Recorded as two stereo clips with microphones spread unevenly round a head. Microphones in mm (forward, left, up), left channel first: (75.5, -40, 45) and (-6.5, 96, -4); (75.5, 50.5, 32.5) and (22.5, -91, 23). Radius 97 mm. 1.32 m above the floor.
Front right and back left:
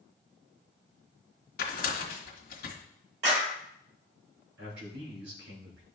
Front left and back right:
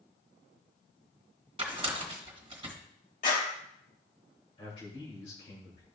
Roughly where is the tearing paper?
Ahead right.